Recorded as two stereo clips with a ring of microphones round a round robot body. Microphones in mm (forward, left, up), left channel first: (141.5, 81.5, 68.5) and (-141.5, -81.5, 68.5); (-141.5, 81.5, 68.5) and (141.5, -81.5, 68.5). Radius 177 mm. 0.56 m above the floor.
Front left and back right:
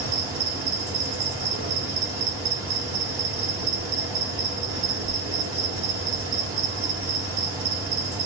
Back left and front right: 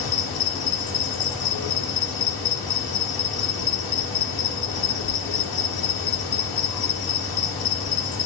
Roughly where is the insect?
Behind.